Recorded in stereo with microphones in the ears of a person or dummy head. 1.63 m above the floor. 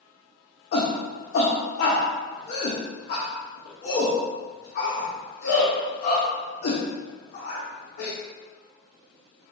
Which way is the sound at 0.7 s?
50° left (ahead or behind).